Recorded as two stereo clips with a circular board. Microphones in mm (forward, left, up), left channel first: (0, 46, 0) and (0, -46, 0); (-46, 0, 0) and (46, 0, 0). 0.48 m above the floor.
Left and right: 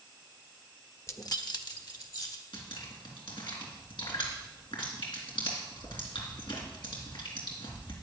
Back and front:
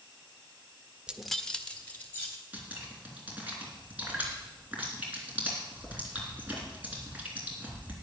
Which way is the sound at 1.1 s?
65° left.